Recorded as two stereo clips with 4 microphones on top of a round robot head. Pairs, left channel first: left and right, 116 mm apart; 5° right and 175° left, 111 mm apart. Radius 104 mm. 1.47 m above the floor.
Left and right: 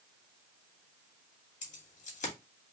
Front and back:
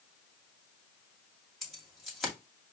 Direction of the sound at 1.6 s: 85° left.